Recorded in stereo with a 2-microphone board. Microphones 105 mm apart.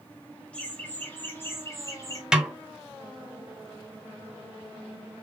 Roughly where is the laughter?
Centre.